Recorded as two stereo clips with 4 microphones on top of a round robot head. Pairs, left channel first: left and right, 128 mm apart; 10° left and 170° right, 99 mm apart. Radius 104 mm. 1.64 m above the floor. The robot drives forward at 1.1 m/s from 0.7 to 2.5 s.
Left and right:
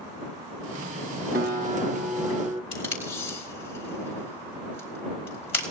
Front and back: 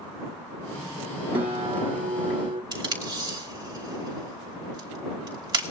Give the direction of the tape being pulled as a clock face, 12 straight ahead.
7 o'clock.